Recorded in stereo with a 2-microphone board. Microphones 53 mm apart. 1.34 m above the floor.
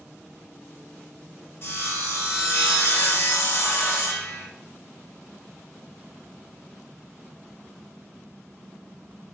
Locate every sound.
1.6 s sawing: 50° left (ahead or behind), 1.4 m